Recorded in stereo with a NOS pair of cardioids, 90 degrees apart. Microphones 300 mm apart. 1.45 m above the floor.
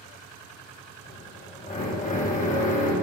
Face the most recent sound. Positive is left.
turn(degrees=25)